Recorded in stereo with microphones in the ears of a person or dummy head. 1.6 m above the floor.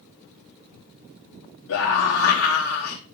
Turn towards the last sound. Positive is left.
turn(degrees=85)